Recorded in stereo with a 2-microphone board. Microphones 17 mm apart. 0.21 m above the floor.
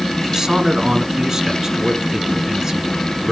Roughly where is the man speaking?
Right.